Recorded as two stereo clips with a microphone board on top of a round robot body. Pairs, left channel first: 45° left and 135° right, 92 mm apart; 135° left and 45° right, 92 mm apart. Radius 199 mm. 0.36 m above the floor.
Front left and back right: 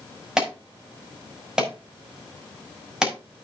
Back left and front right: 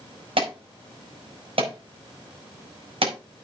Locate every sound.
0.4 s an alarm: 55° right, 6 m